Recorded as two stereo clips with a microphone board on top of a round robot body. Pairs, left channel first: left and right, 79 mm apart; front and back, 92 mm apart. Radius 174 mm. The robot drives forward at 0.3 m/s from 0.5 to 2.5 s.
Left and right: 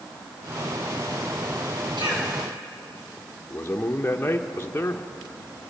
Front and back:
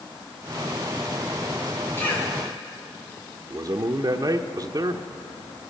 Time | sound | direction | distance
2.0 | a cough | 65° right | 9.5 m
3.5 | a man speaking | 150° left | 1.0 m